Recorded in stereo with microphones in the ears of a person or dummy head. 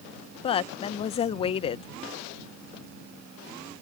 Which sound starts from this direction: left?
A woman speaking, at 0.4 s.